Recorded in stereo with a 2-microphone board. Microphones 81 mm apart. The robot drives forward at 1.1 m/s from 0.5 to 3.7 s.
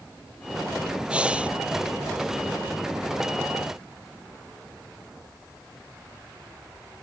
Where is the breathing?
15° right (ahead or behind).